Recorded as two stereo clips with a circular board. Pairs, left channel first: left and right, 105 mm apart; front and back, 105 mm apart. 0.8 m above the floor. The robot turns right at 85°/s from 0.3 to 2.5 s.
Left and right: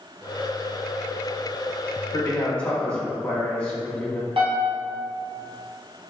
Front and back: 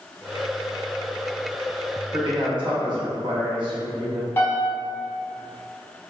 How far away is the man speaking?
About 0.8 m.